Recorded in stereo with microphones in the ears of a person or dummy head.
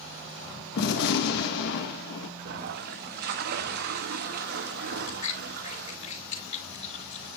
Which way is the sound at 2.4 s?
55° right (ahead or behind).